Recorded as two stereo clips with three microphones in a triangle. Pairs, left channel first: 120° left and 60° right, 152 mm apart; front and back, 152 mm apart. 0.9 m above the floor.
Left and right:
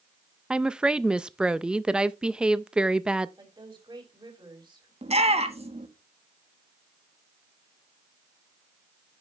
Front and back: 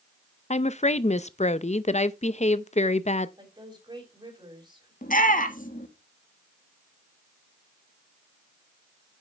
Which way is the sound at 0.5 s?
25° left.